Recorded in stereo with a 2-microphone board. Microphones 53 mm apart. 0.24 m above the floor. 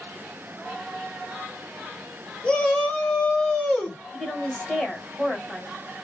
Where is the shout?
15° left (ahead or behind), 1.2 m; by 4.0 s 25° left (ahead or behind), 1.4 m.